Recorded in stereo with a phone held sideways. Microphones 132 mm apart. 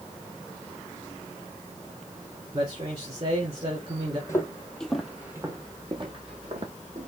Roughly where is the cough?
No cough in this recording.